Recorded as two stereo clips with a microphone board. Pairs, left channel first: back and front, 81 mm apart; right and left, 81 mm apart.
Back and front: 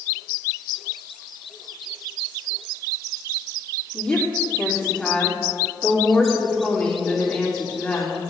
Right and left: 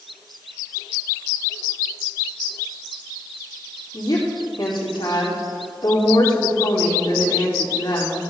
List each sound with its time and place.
3.9 s a woman speaking: 105° right, 3 m